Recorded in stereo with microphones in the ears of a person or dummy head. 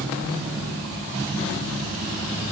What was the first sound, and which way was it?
Only background noise.